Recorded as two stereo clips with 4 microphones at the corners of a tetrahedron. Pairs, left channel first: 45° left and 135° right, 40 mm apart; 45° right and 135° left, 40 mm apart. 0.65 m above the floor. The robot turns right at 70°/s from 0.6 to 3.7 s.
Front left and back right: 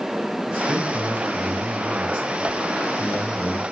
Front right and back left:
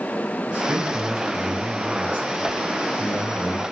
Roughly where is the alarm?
No alarm in this recording.